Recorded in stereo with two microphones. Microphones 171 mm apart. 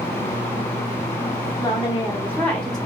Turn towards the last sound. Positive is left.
turn(degrees=5)  # may be behind; listen again after turning